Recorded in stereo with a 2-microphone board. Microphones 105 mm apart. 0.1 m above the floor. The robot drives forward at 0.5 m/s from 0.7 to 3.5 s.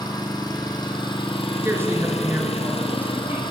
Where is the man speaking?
20° right (ahead or behind), 1.1 m; by 3.4 s 15° right (ahead or behind), 1.4 m.